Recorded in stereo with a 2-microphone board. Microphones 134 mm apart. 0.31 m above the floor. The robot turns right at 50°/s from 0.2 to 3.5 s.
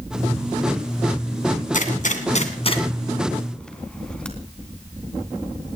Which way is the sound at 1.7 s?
65° left (ahead or behind).